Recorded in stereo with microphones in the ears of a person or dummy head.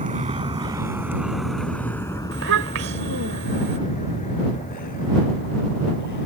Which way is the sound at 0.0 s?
35° right (ahead or behind).